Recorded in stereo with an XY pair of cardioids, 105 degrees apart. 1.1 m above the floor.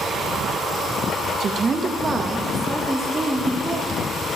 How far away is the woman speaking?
About 0.6 m.